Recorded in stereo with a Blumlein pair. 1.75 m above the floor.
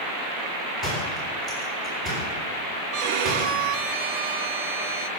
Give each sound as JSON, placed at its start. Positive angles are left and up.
{"t": 0.8, "sound": "a door slam", "azimuth_deg": -15, "distance_m": 10.0}
{"t": 2.9, "sound": "a violin", "azimuth_deg": -45, "distance_m": 1.0}